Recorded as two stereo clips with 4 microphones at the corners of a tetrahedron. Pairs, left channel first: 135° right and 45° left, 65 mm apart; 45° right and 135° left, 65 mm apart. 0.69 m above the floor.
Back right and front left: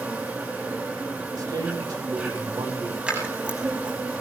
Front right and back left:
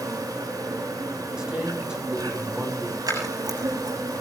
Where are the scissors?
115° left, 7 m.